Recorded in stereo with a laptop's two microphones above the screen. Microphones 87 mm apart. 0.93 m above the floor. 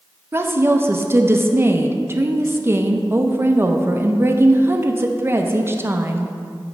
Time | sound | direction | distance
0.3 | a woman speaking | 25° right (ahead or behind) | 0.6 m